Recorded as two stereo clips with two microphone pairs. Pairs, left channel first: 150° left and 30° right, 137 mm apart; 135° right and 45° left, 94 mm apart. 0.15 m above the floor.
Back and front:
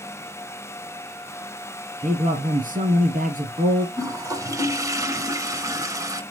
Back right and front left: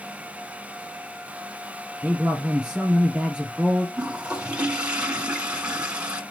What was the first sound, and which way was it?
A man speaking, 40° right.